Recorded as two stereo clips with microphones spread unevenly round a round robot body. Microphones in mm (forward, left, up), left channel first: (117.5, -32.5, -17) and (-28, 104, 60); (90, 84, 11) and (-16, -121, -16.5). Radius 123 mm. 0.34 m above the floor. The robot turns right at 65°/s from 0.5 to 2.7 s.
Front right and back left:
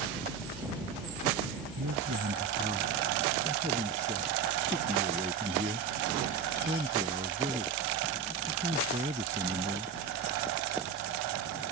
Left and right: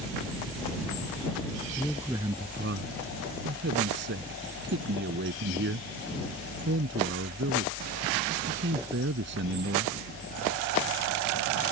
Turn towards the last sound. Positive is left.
turn(degrees=-160)